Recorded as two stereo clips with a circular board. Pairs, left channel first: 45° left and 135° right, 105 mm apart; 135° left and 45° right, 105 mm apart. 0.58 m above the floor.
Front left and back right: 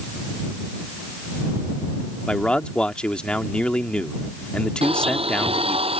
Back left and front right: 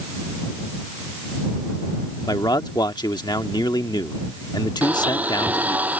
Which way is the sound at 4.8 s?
120° right.